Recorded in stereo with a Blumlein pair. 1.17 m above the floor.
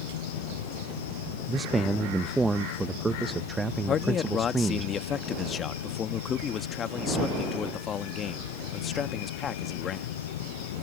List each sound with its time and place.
0.0 s an insect: 55° left
1.5 s a man speaking: 10° right
3.9 s a man speaking: 25° left